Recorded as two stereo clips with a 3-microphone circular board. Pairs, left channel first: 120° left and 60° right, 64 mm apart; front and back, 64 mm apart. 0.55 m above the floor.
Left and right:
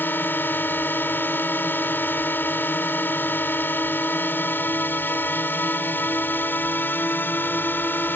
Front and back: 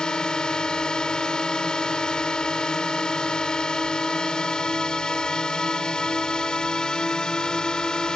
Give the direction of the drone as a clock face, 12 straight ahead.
10 o'clock.